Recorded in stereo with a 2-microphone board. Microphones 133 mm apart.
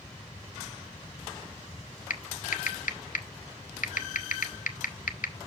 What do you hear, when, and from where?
2.1 s typing on a keyboard: 80° left, 0.9 m